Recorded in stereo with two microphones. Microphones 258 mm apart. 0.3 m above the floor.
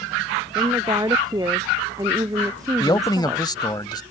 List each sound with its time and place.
0.6 s a woman speaking: 15° right (ahead or behind)
2.8 s a man speaking: 15° left (ahead or behind)